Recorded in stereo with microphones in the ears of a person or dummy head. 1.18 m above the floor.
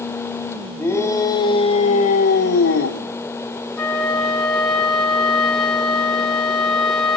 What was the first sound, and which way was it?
A shout, 10° left (ahead or behind).